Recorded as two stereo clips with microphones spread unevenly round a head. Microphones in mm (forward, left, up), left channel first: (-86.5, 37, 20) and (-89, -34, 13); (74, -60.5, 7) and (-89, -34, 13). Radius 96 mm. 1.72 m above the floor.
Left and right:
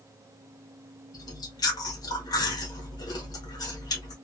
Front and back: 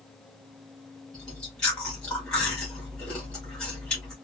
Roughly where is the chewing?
Left.